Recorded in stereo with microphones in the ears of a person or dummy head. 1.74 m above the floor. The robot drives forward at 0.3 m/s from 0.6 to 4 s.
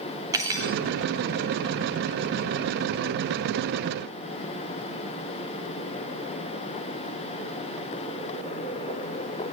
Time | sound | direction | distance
0.3 | cutlery clinking | 15° right (ahead or behind) | 2.5 m